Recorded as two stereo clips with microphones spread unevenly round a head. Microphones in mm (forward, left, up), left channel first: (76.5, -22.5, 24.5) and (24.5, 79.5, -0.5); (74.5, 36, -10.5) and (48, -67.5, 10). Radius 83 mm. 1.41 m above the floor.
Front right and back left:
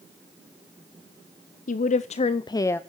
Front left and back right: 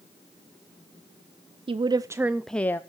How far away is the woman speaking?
About 0.6 m.